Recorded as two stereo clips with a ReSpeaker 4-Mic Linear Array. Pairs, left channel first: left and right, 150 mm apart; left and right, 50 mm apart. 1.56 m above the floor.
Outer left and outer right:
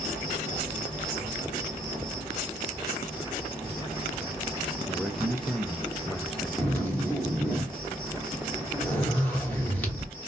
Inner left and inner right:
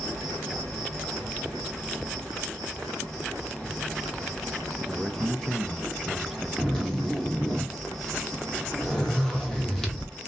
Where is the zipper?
10° left (ahead or behind), 1.2 m.